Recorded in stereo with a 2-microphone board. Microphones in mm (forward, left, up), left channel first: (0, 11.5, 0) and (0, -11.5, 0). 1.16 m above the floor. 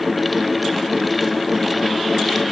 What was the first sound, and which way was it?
Only background noise.